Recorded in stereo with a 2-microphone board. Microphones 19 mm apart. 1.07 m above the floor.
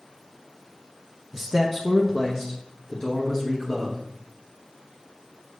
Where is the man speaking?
Centre (ahead or behind), 0.6 m; by 4.0 s 30° left (ahead or behind), 2 m.